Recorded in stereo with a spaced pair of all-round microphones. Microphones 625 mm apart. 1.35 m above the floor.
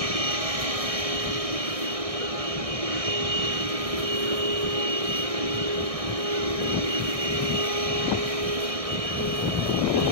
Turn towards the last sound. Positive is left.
turn(degrees=-70)  # may be behind; listen again after turning